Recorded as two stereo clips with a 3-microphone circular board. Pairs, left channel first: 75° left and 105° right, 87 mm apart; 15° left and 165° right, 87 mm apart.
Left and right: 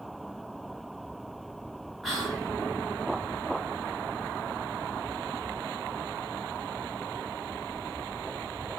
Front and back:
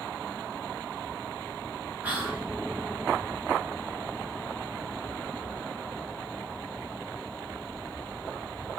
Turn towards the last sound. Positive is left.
turn(degrees=165)